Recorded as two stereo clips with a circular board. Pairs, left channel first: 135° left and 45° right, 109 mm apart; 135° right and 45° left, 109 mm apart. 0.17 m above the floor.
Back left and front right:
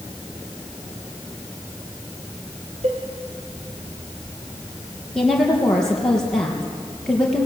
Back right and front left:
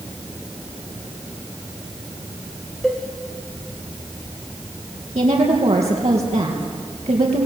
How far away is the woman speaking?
About 4 m.